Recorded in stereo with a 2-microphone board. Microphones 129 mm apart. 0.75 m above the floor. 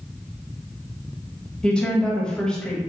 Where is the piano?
No piano in this recording.